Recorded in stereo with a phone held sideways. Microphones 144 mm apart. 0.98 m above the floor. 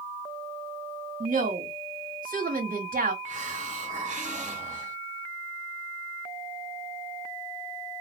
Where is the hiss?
55° right (ahead or behind), 1.1 m.